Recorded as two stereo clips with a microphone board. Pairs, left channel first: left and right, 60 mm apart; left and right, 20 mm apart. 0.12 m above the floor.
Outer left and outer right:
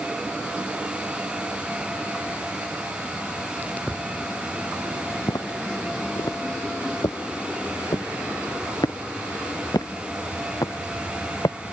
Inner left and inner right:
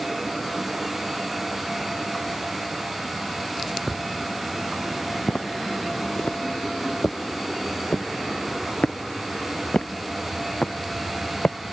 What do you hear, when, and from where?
5.3 s footsteps: 85° left; by 11.6 s 80° left